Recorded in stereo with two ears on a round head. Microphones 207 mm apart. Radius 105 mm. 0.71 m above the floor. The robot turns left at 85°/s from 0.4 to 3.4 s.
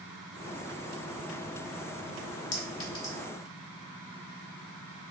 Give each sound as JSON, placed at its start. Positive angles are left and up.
{"t": 2.5, "sound": "a clink", "side_deg": 50, "distance_m": 1.1}